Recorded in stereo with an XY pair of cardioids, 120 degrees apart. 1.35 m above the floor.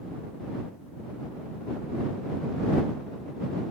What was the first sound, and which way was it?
Only background noise.